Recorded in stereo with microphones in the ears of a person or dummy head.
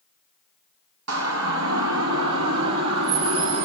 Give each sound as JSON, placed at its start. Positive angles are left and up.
{"t": 1.1, "sound": "a siren", "side_deg": -80, "distance_m": 6.5}